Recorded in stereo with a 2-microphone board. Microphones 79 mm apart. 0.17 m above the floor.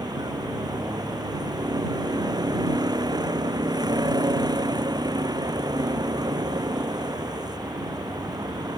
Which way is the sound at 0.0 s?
55° right (ahead or behind).